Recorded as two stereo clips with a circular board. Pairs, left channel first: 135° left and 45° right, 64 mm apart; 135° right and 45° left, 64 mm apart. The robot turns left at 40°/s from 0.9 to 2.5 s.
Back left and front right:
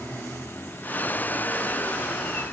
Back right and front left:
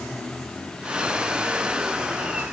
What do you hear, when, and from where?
Only background noise.